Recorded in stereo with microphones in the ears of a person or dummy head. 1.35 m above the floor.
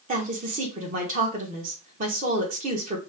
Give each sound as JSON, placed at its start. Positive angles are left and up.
{"t": 0.1, "sound": "a woman speaking", "side_deg": -40, "distance_m": 1.6}